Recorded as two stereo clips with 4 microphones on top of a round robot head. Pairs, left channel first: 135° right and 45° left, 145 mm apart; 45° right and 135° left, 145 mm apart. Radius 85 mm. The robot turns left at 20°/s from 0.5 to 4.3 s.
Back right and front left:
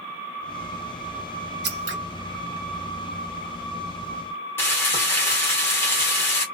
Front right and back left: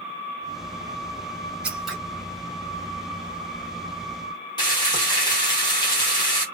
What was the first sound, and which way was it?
Scissors, 50° left.